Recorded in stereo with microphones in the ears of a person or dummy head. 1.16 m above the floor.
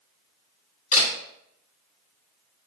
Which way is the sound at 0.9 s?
35° left (ahead or behind).